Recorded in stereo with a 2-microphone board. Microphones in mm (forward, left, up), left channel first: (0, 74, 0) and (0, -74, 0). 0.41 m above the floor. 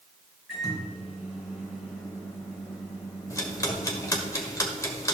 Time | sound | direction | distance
0.5 | a microwave | 5° right (ahead or behind) | 4.5 m
3.3 | ticking | 20° left (ahead or behind) | 1.4 m